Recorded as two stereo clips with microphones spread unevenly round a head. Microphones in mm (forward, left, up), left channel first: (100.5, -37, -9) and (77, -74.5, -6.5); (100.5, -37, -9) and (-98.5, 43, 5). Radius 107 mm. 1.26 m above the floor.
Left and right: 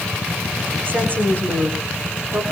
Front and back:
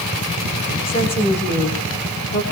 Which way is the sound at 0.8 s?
85° right.